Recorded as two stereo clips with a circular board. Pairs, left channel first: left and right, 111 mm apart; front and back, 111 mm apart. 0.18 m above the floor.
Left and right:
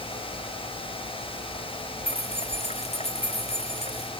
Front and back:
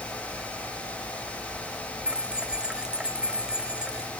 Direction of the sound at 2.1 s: 100° left.